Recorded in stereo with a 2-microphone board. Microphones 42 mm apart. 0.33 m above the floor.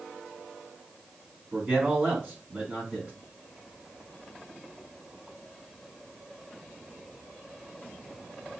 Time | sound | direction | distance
1.5 | a man speaking | 30° right (ahead or behind) | 2.5 m